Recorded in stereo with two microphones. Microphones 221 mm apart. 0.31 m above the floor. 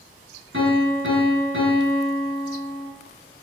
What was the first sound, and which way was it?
A piano, 65° right (ahead or behind).